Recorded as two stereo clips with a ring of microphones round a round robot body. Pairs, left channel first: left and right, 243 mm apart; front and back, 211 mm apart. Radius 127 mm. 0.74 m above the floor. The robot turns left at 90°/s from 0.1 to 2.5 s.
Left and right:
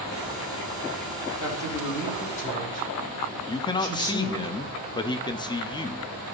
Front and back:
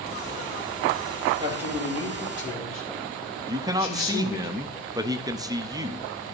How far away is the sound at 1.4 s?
About 3 m.